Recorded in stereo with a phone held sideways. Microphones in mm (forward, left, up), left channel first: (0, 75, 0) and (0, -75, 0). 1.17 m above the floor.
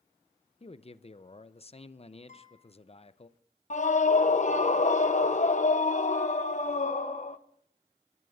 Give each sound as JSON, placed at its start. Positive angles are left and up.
{"t": 0.6, "sound": "a man speaking", "side_deg": 40, "distance_m": 0.6}
{"t": 2.3, "sound": "a guitar", "side_deg": 50, "distance_m": 3.5}
{"t": 3.7, "sound": "a scream", "side_deg": 50, "distance_m": 0.8}